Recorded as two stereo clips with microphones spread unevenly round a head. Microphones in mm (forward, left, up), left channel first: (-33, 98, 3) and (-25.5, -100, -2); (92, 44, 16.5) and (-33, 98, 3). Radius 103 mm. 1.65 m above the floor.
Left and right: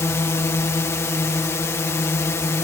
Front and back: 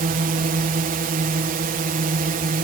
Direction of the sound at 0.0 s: 170° left.